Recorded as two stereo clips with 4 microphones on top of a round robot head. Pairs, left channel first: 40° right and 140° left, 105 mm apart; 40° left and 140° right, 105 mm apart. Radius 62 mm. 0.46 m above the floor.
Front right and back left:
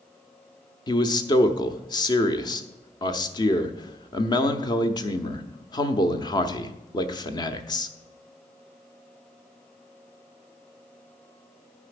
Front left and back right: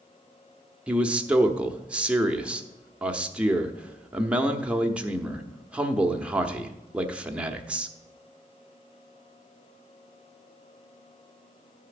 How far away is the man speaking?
About 1.0 m.